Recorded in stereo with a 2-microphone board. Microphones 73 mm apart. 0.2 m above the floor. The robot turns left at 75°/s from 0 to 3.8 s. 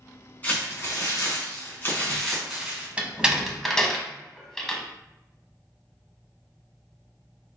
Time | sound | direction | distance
0.4 | crumpling | 145° left | 2 m
3.0 | a door slam | 20° right (ahead or behind) | 0.8 m